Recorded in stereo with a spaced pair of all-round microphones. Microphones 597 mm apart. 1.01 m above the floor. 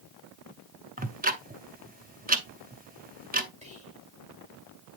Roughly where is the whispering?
Centre.